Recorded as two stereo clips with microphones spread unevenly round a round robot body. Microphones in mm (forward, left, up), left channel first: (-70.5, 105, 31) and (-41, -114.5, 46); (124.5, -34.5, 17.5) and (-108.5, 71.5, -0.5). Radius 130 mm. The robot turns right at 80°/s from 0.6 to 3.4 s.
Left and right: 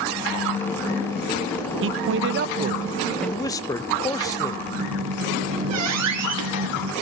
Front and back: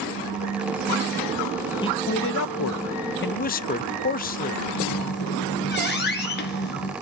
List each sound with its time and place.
1.8 s a man speaking: 100° right, 0.6 m; by 4.6 s 30° left, 0.6 m
4.7 s a squeak: 70° right, 2 m